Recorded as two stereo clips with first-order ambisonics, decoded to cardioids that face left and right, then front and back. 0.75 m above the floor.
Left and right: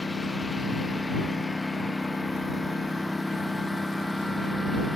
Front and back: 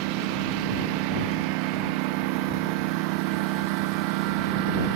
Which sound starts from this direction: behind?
A lawn mower, at 0.0 s.